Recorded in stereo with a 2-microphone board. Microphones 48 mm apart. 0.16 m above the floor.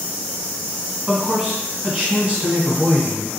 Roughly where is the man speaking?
Right.